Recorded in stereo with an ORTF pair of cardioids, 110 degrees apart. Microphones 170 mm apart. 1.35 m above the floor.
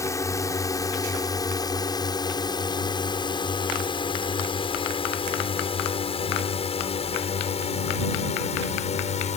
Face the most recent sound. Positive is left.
turn(degrees=40)